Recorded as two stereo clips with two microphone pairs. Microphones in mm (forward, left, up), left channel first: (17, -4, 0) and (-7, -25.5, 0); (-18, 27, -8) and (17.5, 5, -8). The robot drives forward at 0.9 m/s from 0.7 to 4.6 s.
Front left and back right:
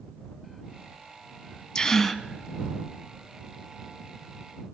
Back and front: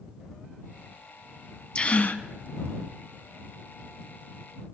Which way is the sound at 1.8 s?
95° left.